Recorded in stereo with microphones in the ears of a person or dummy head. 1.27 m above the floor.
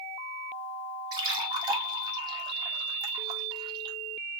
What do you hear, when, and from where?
1.1 s a splash: 30° right (ahead or behind), 1.4 m